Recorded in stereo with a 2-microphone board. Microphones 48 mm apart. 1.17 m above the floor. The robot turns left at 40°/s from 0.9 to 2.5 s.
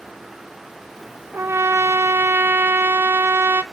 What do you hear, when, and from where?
1.3 s a trumpet: 70° right, 0.5 m; by 3.6 s 115° right, 0.5 m